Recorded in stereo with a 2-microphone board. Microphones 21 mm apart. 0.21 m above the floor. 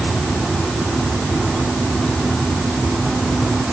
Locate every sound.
Only background noise.